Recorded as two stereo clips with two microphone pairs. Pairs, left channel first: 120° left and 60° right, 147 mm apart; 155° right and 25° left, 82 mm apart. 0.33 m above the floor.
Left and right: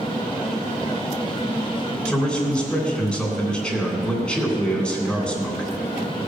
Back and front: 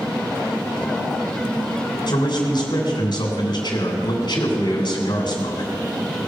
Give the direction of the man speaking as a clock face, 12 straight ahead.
5 o'clock.